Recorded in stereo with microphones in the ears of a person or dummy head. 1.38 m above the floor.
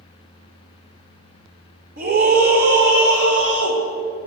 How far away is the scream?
About 3.5 m.